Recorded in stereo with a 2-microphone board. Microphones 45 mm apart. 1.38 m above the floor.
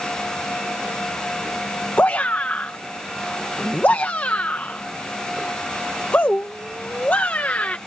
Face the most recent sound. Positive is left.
turn(degrees=40)  # may be behind; listen again after turning